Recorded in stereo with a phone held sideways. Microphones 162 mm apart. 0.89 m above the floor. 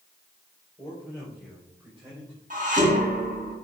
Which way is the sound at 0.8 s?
10° left (ahead or behind).